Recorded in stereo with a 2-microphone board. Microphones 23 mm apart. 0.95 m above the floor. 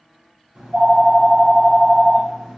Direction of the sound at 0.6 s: 60° right (ahead or behind).